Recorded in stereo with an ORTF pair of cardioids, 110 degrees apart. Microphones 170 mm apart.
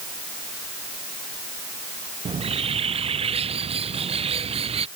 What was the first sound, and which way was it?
A bird, 35° right.